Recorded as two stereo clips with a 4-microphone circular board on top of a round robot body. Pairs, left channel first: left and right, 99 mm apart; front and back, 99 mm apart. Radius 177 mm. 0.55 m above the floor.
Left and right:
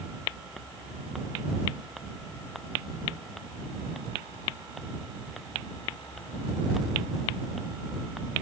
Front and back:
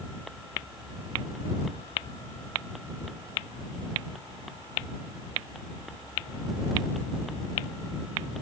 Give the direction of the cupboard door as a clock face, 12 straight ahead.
I don't hear a cupboard door.